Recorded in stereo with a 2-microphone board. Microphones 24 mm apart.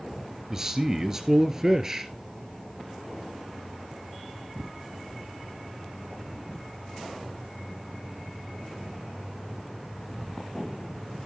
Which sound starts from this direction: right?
A man speaking, at 0.5 s.